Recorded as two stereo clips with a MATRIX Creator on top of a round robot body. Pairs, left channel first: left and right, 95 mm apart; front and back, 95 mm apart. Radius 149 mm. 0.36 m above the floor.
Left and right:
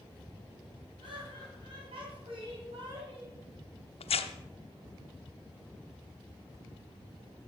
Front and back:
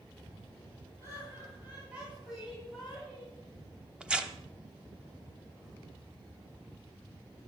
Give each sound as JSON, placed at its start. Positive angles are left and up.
{"t": 1.0, "sound": "laughter", "azimuth_deg": -120, "distance_m": 4.0}
{"t": 4.0, "sound": "tearing paper", "azimuth_deg": 100, "distance_m": 0.9}